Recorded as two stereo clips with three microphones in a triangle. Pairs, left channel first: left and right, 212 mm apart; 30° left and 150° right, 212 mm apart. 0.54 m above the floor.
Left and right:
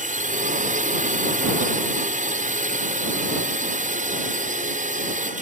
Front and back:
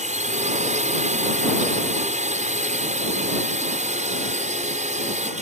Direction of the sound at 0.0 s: 115° right.